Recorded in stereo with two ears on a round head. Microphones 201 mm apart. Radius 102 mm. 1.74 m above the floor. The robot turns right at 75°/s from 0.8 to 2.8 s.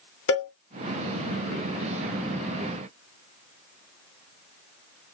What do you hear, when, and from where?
0.3 s a cowbell: 60° left (ahead or behind), 0.8 m